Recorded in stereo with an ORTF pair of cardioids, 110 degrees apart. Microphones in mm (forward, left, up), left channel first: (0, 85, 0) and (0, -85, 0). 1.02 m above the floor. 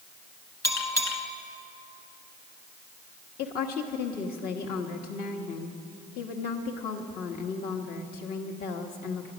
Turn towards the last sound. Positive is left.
turn(degrees=65)